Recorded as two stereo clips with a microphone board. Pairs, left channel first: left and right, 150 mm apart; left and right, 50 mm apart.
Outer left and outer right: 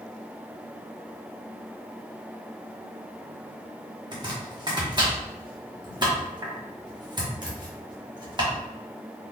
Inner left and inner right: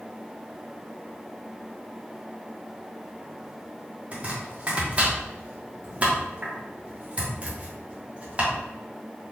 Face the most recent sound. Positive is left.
turn(degrees=-30)  # may be behind; listen again after turning